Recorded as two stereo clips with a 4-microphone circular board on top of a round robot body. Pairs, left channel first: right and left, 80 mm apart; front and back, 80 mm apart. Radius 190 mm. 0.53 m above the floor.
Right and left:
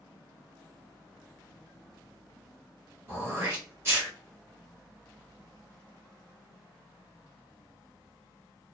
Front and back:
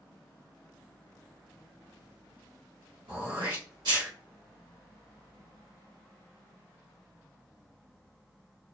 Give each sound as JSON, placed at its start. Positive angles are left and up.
{"t": 3.1, "sound": "throat clearing", "azimuth_deg": 155, "distance_m": 1.4}